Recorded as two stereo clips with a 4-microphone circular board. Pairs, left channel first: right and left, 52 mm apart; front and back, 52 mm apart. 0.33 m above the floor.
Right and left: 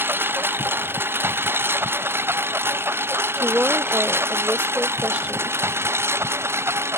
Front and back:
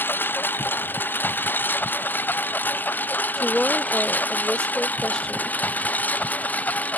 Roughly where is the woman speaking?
Ahead left.